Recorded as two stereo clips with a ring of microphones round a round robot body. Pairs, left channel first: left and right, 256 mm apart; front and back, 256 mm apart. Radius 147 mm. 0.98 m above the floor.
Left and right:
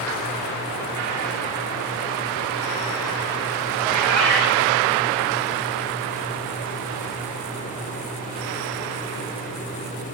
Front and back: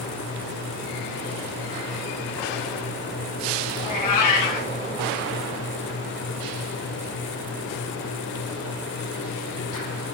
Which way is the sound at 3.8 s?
Straight ahead.